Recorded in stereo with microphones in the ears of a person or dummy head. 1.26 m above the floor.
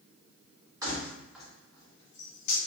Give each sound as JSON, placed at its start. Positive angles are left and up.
{"t": 0.8, "sound": "keys jangling", "side_deg": -20, "distance_m": 1.2}